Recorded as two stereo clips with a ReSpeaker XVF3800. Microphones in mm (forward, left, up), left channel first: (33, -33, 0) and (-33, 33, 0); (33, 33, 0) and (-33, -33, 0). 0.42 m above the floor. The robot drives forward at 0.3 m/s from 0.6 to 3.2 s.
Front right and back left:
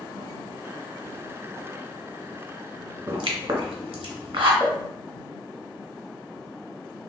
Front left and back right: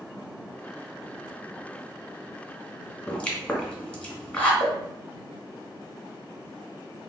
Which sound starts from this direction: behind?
A pop, at 4.6 s.